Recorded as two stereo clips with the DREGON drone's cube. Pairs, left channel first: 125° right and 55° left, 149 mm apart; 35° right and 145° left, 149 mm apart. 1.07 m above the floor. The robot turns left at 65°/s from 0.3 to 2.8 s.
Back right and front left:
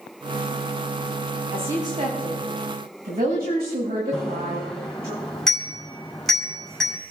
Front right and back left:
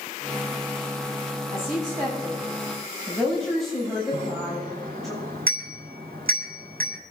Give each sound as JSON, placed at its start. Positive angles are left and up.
{"t": 1.5, "sound": "a woman speaking", "azimuth_deg": 140, "distance_m": 7.5}
{"t": 4.1, "sound": "a bicycle bell", "azimuth_deg": 145, "distance_m": 5.5}